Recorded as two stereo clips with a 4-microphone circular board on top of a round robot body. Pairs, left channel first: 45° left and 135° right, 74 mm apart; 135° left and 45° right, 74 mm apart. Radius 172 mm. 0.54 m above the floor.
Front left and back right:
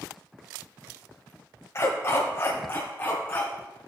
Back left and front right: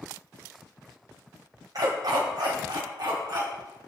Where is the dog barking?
10° right, 1.5 m; by 3.5 s 20° right, 2.5 m.